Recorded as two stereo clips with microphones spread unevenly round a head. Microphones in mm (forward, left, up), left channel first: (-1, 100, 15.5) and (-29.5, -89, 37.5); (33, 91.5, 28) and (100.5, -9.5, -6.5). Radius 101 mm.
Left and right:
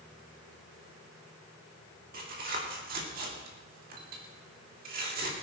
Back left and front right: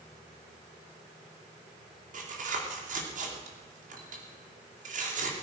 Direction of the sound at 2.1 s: 50° right.